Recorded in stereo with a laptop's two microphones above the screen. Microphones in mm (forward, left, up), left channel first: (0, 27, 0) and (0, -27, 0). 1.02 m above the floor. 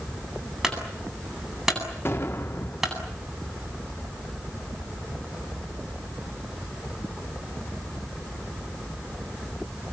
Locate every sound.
0.6 s a clunk: 5° right (ahead or behind), 8.5 m
2.0 s an explosion: 50° left (ahead or behind), 3 m